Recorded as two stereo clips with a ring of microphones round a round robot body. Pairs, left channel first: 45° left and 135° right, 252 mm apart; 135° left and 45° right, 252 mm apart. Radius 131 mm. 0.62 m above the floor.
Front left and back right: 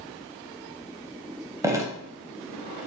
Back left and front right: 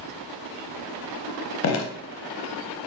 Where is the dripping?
150° left, 0.6 m.